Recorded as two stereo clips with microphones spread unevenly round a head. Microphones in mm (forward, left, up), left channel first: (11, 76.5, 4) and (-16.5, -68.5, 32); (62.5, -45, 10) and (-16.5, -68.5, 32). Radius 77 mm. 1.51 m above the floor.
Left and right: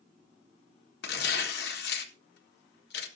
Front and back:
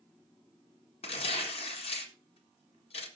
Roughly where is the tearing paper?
Ahead left.